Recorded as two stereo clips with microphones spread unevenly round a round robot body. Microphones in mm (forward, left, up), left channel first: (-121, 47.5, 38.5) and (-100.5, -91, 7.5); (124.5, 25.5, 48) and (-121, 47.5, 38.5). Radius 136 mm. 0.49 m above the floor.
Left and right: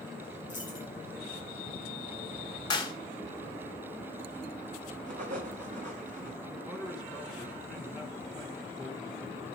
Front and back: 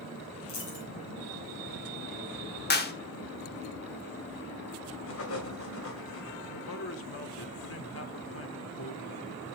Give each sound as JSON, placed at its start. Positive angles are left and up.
{"t": 0.5, "sound": "a dropped coin", "azimuth_deg": 0, "distance_m": 5.0}
{"t": 2.7, "sound": "a clap", "azimuth_deg": 30, "distance_m": 1.3}
{"t": 5.1, "sound": "writing", "azimuth_deg": -45, "distance_m": 1.7}
{"t": 6.4, "sound": "a man speaking", "azimuth_deg": -5, "distance_m": 1.6}